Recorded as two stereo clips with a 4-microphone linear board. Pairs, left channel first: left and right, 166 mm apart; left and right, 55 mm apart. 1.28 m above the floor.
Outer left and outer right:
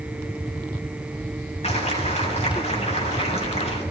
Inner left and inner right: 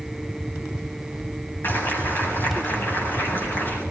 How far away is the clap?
About 8 m.